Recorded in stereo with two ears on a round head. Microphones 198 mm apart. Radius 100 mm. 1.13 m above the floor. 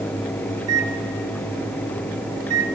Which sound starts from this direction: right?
A microwave, at 0.6 s.